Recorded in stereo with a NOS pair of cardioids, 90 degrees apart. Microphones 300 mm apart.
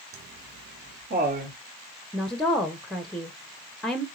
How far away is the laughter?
About 0.7 m.